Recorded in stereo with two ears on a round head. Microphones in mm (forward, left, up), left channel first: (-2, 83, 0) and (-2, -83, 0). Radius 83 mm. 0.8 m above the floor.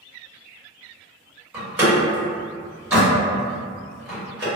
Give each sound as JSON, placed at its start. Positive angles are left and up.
{"t": 1.5, "sound": "a door slam", "side_deg": -10, "distance_m": 2.0}